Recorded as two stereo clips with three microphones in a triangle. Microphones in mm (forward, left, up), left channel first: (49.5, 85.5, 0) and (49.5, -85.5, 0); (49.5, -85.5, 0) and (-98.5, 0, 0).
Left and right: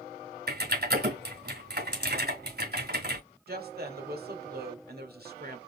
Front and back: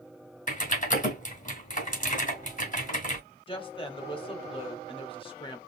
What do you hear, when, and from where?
0.5 s typing on a keyboard: 70° right, 2 m
3.5 s a woman speaking: 85° right, 1.7 m